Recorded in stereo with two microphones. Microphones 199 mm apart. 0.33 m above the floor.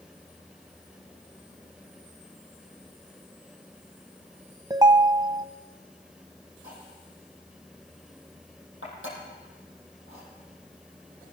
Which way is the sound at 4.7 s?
20° right (ahead or behind).